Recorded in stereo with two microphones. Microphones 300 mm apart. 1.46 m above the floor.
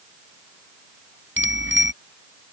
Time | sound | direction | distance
1.4 | a bicycle bell | 45° right (ahead or behind) | ?